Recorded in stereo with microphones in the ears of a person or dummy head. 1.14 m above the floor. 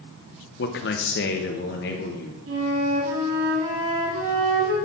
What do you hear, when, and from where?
0.6 s a man speaking: 45° left (ahead or behind), 0.7 m; by 2.4 s 50° left (ahead or behind), 1.6 m
2.5 s a flute: 60° right (ahead or behind), 1.6 m